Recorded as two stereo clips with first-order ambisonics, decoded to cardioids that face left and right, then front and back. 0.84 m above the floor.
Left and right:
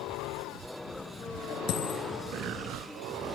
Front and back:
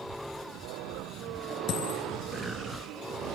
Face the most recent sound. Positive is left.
turn(degrees=50)